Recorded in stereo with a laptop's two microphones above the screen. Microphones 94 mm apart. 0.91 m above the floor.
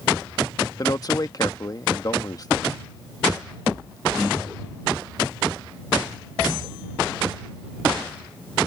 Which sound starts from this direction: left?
A man speaking, at 0.8 s.